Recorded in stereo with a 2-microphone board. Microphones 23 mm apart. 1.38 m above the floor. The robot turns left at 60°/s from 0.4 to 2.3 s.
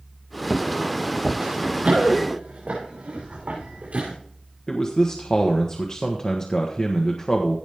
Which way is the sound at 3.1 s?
40° right (ahead or behind).